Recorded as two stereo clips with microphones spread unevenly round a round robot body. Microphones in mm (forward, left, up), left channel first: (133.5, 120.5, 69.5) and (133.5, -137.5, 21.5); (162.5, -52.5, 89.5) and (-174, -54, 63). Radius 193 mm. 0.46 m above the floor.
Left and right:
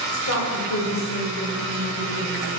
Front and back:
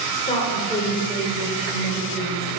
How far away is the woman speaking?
About 2.5 m.